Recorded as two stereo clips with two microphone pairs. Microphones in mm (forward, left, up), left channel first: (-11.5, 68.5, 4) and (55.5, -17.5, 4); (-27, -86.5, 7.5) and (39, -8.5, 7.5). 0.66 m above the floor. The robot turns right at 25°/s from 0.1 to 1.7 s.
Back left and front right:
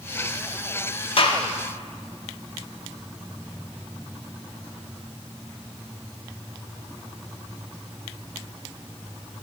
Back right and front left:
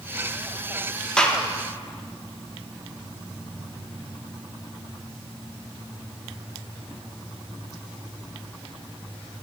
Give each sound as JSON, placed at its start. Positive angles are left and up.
{"t": 1.2, "sound": "a gunshot", "azimuth_deg": 150, "distance_m": 0.7}